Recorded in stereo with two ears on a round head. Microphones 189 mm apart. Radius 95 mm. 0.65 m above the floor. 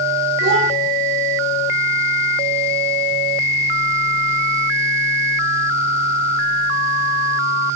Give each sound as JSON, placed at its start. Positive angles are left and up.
{"t": 0.4, "sound": "a child speaking", "side_deg": -70, "distance_m": 1.7}